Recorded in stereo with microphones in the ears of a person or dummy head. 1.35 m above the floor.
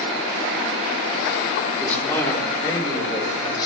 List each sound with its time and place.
1.8 s a man speaking: 10° left (ahead or behind), 3 m; by 3.7 s 25° left (ahead or behind), 5.5 m